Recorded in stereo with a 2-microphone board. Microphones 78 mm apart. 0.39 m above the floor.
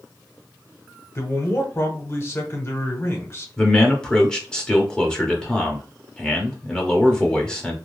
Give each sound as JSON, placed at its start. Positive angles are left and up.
{"t": 1.1, "sound": "a man speaking", "side_deg": 35, "distance_m": 1.0}
{"t": 3.6, "sound": "a man speaking", "side_deg": 10, "distance_m": 0.9}